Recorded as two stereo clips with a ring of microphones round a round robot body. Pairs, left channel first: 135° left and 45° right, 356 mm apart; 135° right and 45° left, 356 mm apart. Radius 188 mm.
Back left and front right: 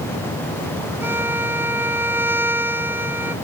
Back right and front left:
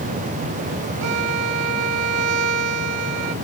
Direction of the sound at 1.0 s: 40° left.